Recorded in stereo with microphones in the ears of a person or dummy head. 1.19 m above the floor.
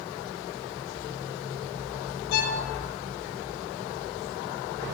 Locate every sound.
2.3 s a violin: 55° left (ahead or behind), 0.9 m